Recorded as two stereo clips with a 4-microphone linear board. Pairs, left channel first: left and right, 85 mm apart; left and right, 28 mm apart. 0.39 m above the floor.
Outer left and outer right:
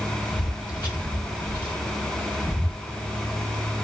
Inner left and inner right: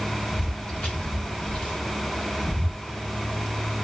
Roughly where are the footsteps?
Left.